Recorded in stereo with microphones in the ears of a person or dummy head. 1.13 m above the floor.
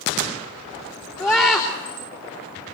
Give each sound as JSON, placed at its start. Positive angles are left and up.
{"t": 1.2, "sound": "a scream", "side_deg": 10, "distance_m": 3.0}